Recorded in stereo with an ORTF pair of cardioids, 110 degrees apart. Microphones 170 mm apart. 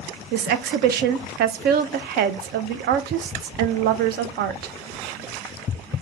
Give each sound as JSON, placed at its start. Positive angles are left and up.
{"t": 0.3, "sound": "a woman speaking", "azimuth_deg": -70, "distance_m": 0.6}